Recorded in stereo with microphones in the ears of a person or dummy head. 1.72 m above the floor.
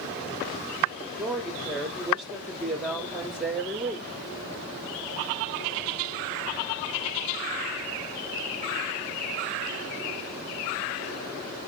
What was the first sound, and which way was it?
A woman speaking, 10° right (ahead or behind).